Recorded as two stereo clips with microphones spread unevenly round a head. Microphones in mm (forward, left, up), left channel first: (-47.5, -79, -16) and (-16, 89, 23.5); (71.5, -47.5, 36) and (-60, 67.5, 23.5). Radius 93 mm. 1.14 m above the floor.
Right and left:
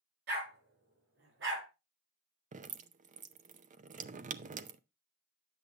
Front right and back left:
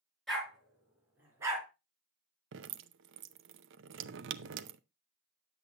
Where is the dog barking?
45° left, 5 m; by 1.7 s 65° left, 4.5 m.